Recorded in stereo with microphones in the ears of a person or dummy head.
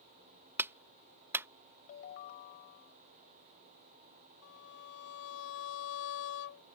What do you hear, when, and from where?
0.6 s a clap: 10° right (ahead or behind)
1.9 s a ringtone: 45° left (ahead or behind)
4.4 s a violin: 65° left (ahead or behind)